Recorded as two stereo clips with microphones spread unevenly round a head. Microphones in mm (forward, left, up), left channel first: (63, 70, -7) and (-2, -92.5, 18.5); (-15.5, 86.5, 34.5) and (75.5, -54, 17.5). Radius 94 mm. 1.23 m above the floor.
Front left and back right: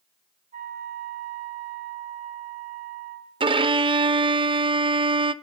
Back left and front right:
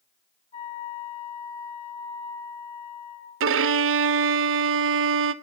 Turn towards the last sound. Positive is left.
turn(degrees=-50)